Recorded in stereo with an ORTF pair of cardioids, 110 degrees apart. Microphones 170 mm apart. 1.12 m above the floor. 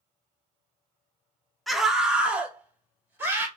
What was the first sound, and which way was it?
A scream, straight ahead.